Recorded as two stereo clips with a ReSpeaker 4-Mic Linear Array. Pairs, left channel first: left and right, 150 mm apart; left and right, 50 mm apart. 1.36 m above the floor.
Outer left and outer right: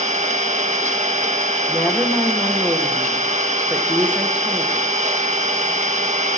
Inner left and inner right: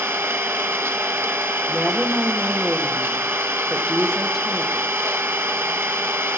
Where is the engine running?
50° right (ahead or behind), 1.3 m.